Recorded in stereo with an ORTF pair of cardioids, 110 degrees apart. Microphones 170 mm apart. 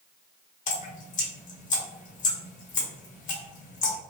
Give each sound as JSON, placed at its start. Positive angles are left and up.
{"t": 0.7, "sound": "dripping", "azimuth_deg": 50, "distance_m": 1.0}